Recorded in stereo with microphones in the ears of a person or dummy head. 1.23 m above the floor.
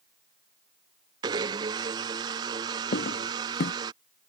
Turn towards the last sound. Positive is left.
turn(degrees=50)  # may be behind; listen again after turning